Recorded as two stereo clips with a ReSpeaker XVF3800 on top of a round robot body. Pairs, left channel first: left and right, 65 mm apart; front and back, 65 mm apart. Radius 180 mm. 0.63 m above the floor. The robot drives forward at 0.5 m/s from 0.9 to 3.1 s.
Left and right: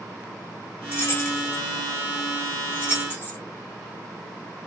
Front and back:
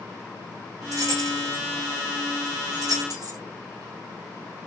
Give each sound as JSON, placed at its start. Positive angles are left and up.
{"t": 0.9, "sound": "keys jangling", "azimuth_deg": 145, "distance_m": 3.5}